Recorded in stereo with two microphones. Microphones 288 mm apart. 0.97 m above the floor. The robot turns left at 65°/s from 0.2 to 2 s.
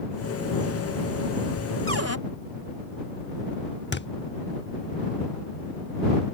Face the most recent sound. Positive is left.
turn(degrees=40)  # may be behind; listen again after turning